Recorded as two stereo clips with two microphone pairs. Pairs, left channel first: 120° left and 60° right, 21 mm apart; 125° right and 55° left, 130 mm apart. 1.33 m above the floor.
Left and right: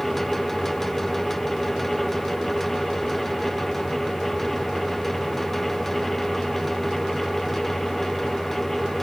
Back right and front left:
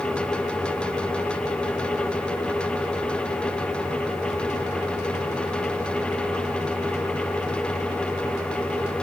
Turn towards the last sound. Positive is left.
No sound to turn to.